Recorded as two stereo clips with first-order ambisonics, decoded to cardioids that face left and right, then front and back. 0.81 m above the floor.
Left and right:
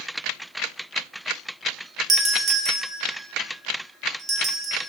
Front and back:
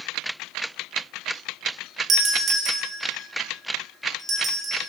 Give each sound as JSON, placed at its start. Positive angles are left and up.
{"t": 2.1, "sound": "a doorbell", "azimuth_deg": -145, "distance_m": 1.0}